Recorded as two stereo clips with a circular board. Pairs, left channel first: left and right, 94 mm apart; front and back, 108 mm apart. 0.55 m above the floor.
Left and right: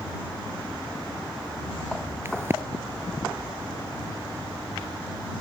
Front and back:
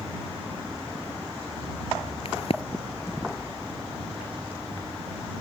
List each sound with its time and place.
2.2 s a crack: 25° right